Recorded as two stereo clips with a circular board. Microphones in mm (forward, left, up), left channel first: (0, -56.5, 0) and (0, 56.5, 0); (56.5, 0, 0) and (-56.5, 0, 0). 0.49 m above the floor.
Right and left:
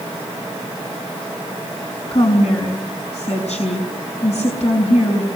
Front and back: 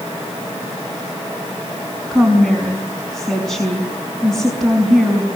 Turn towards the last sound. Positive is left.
turn(degrees=-85)